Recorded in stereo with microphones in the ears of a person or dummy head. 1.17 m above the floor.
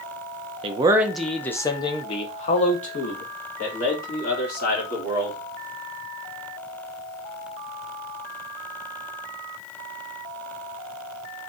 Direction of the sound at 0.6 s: 35° right (ahead or behind).